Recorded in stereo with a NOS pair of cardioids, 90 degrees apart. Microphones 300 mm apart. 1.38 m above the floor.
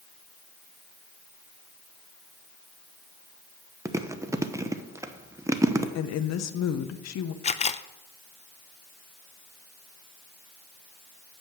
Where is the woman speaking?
60° left, 1.0 m.